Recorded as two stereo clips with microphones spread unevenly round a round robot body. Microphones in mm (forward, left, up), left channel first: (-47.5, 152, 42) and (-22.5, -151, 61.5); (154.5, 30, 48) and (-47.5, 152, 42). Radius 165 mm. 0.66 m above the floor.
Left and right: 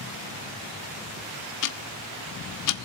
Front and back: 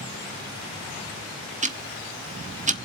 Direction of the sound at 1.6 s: 90° left.